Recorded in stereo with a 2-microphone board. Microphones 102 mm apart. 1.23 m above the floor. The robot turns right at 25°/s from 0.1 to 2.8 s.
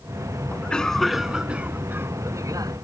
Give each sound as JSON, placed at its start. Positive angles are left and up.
{"t": 0.5, "sound": "a cough", "azimuth_deg": 165}